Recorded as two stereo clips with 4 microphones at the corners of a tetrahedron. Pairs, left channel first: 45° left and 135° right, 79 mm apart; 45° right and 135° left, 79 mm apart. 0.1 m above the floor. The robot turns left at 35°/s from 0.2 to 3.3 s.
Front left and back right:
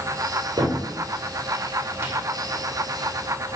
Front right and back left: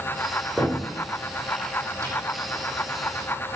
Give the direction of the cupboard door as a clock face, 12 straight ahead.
4 o'clock.